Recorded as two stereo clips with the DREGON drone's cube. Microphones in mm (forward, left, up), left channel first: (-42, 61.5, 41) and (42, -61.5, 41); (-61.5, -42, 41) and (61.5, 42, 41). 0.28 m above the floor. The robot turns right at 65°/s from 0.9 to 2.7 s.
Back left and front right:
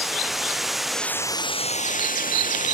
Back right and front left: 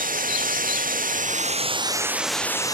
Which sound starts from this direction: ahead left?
Running water, at 0.0 s.